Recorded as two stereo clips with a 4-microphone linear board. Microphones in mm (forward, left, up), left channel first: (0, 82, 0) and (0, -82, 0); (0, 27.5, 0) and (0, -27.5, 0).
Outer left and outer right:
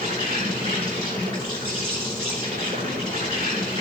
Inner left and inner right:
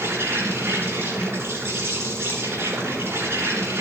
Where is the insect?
65° right (ahead or behind), 8.5 m.